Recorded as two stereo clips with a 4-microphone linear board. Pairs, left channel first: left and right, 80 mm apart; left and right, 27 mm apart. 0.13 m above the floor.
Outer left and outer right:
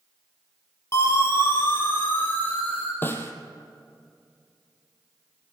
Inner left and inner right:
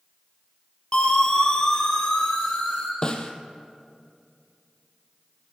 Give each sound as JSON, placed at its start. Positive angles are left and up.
{"t": 0.9, "sound": "a siren", "side_deg": 35, "distance_m": 5.0}
{"t": 3.0, "sound": "a snare drum", "side_deg": 25, "distance_m": 1.9}